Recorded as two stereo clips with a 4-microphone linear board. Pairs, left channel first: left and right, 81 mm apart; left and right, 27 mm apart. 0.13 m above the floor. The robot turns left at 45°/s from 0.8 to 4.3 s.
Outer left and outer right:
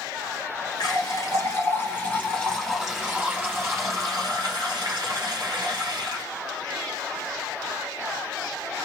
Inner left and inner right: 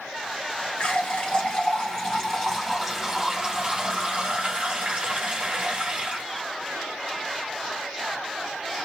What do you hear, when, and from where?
0.8 s a running tap: 85° left, 1.8 m; by 6.2 s 75° right, 1.8 m